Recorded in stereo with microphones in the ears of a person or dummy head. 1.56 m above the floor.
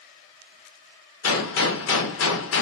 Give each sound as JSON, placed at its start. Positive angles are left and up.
{"t": 1.2, "sound": "a gunshot", "side_deg": 75, "distance_m": 0.6}